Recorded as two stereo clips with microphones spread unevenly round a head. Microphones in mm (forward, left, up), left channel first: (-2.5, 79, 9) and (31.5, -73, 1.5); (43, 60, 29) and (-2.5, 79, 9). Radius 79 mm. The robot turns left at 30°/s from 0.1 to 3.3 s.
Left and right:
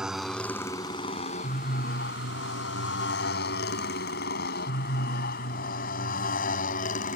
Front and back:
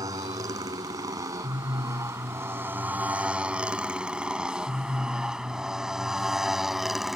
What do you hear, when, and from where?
0.0 s a motorcycle: 165° right; by 7.2 s 65° left